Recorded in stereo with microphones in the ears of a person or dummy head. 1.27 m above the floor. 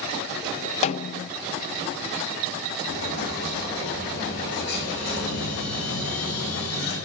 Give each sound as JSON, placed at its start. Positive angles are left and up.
{"t": 0.8, "sound": "a snare drum", "side_deg": 35, "distance_m": 0.6}
{"t": 2.8, "sound": "an explosion", "side_deg": 60, "distance_m": 8.5}